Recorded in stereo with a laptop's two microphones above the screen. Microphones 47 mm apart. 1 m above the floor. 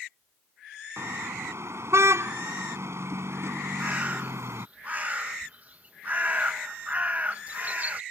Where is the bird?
30° right (ahead or behind).